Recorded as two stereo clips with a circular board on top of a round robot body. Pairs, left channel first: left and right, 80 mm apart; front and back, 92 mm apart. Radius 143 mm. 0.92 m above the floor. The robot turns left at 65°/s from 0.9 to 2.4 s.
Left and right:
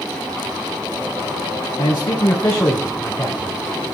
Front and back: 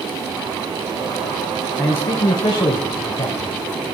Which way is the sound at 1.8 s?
75° left.